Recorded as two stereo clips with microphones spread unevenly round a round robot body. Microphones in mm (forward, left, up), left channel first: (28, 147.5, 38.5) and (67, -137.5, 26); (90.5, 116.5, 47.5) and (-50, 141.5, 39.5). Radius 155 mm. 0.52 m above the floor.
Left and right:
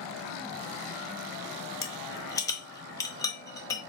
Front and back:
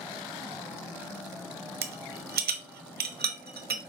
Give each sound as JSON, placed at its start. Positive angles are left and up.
{"t": 1.8, "sound": "a rattle", "azimuth_deg": 175, "distance_m": 0.9}